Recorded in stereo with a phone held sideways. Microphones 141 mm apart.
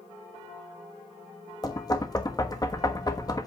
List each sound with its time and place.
1.6 s knocking: 25° left (ahead or behind), 1.2 m